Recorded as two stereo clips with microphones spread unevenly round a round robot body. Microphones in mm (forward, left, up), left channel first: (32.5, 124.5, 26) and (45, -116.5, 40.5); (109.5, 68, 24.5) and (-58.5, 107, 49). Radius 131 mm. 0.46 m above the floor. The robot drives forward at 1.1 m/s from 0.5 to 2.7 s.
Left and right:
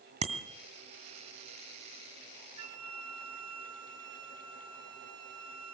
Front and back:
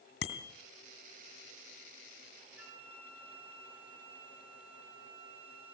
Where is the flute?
110° right, 2.5 m.